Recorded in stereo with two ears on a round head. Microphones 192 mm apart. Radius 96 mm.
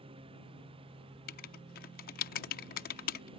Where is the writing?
45° left (ahead or behind).